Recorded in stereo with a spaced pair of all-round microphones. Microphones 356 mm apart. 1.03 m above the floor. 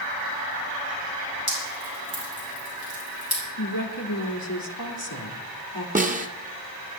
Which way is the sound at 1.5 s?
80° right.